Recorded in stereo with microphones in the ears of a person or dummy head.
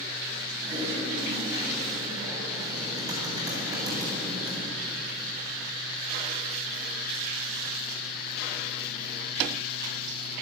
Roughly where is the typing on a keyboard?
Right.